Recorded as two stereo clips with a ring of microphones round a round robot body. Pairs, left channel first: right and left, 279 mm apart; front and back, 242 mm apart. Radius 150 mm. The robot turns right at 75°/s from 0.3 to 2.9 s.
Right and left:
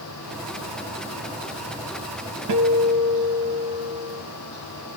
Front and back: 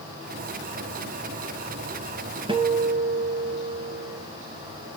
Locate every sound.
2.5 s a guitar: 110° left, 3.5 m; by 4.2 s 140° left, 3.5 m